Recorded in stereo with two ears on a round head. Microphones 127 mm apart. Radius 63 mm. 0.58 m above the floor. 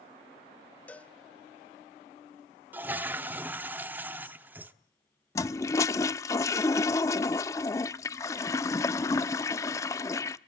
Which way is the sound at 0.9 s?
10° left (ahead or behind).